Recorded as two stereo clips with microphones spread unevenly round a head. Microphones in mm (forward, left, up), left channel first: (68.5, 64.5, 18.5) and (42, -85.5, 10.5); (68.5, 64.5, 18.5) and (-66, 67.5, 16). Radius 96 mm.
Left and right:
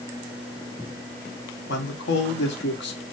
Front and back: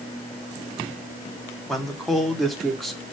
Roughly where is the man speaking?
Left.